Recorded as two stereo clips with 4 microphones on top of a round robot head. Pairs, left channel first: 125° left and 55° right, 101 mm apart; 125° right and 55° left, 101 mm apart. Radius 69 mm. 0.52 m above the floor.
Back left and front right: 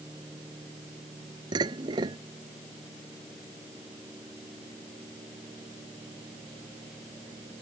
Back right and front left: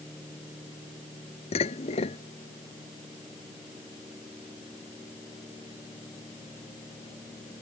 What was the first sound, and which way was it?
Dishes clattering, 105° right.